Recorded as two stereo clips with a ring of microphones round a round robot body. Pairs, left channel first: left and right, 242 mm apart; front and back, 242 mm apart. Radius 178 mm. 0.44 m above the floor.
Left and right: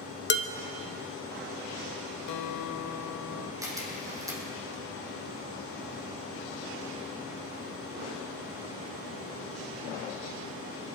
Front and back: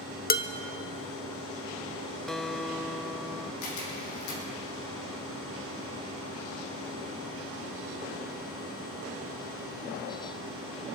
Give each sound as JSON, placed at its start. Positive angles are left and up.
{"t": 0.3, "sound": "dishes clattering", "azimuth_deg": 50, "distance_m": 1.1}
{"t": 2.3, "sound": "a guitar", "azimuth_deg": 90, "distance_m": 0.7}
{"t": 3.6, "sound": "a camera shutter", "azimuth_deg": -15, "distance_m": 4.5}